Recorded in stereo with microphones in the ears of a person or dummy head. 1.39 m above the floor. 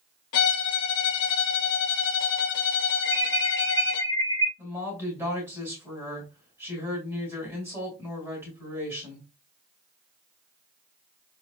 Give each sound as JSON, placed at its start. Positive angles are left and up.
{"t": 0.3, "sound": "a violin", "side_deg": 60, "distance_m": 0.9}
{"t": 3.0, "sound": "an alarm", "side_deg": -25, "distance_m": 2.0}
{"t": 4.6, "sound": "a woman speaking", "side_deg": -10, "distance_m": 2.5}